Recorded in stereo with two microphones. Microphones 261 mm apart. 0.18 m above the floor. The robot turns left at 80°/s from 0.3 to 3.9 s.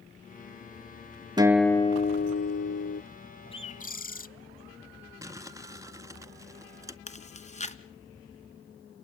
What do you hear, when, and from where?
1.4 s a guitar: 160° right, 0.7 m; by 3.0 s 65° left, 0.7 m
3.5 s a bird: 145° left, 0.5 m; by 4.3 s 115° left, 0.5 m
5.2 s crumpling: 15° right (ahead or behind), 0.6 m
7.1 s chewing: 25° left (ahead or behind), 1.5 m